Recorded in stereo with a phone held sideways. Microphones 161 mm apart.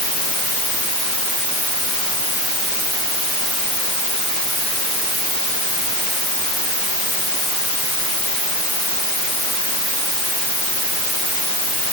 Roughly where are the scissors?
I don't hear scissors.